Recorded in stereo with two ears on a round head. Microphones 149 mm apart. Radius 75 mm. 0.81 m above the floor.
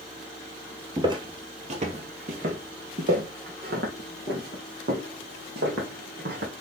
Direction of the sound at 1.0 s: 25° right (ahead or behind).